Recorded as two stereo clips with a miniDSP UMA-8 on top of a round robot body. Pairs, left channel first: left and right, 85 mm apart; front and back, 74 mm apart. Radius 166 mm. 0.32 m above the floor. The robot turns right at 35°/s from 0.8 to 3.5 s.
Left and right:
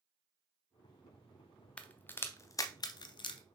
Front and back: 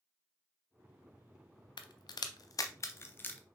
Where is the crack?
10° left, 0.5 m; by 3.4 s 70° left, 0.5 m.